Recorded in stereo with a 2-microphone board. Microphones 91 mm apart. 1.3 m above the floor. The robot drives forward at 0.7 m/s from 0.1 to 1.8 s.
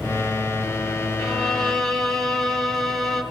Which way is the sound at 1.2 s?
5° left (ahead or behind).